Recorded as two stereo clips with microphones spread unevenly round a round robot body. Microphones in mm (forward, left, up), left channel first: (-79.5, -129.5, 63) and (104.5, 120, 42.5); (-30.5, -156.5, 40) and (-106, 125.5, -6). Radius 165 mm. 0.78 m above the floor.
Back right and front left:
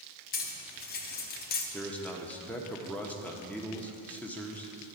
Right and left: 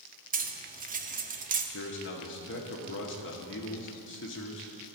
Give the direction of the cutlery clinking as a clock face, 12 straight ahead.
6 o'clock.